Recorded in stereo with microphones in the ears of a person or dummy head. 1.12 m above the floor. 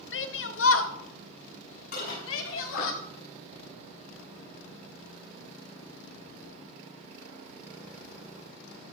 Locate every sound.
0.1 s a shout: 60° left (ahead or behind), 1.2 m; by 2.9 s 75° left (ahead or behind), 3 m
1.9 s dishes clattering: 55° left (ahead or behind), 6 m